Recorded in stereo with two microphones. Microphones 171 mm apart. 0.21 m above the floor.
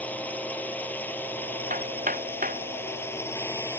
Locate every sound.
0.0 s a drone: 10° left (ahead or behind); by 3.8 s 15° left (ahead or behind)
1.7 s hammering: 55° right (ahead or behind)